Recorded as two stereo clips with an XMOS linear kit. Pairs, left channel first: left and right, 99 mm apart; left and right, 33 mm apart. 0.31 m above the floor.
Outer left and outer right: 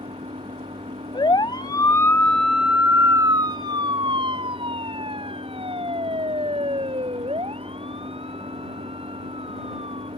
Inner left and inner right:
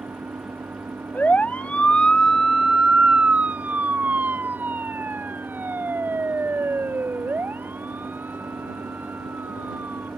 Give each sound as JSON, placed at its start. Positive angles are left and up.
{"t": 0.0, "sound": "an engine running", "side_deg": -85}
{"t": 1.1, "sound": "a siren", "side_deg": 55}